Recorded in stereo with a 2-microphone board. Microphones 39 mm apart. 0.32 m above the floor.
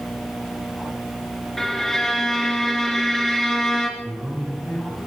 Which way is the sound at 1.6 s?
10° left (ahead or behind).